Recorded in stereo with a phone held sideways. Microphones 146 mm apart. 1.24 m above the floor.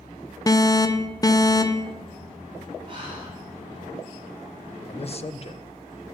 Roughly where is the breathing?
Right.